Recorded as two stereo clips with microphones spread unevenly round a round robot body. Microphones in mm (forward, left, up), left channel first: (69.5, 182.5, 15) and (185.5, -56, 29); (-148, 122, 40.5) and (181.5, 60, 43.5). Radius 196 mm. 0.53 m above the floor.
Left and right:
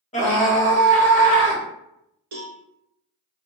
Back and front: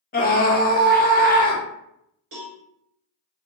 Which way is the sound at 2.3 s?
70° right.